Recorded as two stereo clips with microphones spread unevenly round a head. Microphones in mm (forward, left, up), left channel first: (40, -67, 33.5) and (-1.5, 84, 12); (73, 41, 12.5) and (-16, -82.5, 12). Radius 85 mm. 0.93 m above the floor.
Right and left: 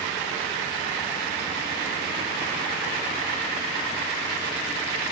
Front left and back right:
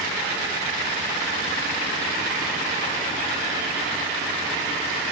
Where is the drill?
I don't hear a drill.